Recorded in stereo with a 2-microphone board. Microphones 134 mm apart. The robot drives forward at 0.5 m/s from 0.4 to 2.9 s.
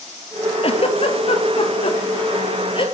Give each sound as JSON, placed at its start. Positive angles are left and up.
{"t": 0.6, "sound": "a giggle", "side_deg": 50, "distance_m": 1.3}